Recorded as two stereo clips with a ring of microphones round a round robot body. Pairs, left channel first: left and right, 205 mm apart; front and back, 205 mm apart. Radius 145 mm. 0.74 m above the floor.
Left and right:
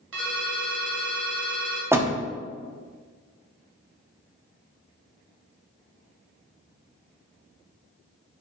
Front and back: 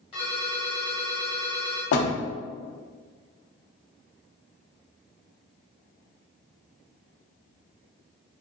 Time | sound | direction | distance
0.1 | a ringtone | 75° right | 1.6 m
1.9 | a door slam | 10° right | 0.8 m